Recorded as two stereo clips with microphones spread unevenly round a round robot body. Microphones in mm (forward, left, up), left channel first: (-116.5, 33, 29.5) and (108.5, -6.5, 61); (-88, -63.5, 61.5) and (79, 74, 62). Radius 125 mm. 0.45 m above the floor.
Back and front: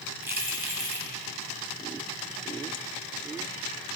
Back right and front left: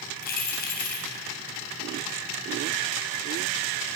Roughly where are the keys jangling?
Right.